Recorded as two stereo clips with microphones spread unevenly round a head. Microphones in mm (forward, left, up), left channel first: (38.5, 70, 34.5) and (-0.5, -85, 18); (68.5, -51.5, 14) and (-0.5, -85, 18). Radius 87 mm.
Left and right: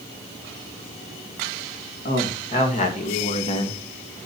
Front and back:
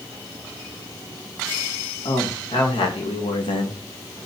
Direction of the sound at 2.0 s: 35° left.